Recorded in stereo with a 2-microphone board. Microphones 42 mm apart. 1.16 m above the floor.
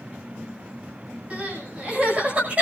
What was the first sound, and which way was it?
Crying, 35° right (ahead or behind).